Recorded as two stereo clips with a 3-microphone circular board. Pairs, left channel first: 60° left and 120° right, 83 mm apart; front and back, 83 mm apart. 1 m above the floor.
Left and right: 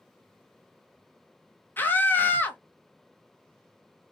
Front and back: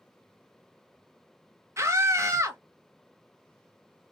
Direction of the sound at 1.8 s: 125° left.